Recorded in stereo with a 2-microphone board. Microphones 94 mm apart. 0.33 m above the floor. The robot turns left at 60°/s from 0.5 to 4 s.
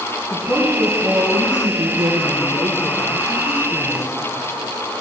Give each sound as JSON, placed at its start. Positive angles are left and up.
{"t": 0.3, "sound": "a woman speaking", "azimuth_deg": -10, "distance_m": 2.5}